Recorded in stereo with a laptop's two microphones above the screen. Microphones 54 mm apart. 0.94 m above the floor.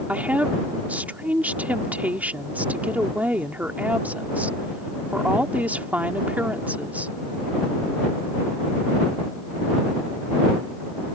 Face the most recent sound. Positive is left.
turn(degrees=-30)  # may be behind; listen again after turning